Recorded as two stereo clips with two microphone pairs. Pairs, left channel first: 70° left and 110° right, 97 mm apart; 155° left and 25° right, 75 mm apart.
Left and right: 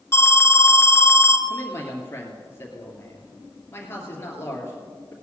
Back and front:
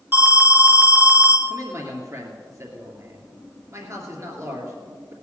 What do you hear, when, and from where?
0.1 s an alarm: 25° left, 1.4 m
1.5 s a man speaking: 10° left, 2.5 m